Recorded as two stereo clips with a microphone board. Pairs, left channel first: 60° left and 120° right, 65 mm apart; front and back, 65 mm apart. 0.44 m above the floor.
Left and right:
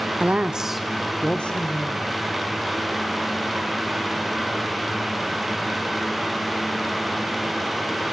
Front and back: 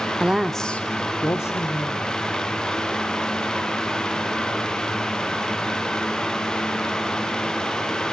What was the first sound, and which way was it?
A woman speaking, 135° right.